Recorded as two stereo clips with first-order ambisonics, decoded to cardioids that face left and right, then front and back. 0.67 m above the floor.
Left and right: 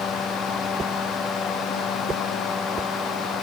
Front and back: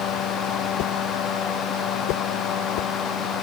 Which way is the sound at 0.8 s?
20° right.